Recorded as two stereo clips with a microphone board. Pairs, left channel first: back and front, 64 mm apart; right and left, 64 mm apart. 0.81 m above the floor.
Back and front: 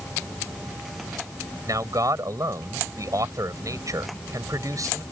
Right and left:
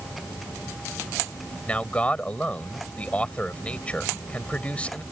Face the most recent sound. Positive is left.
turn(degrees=-20)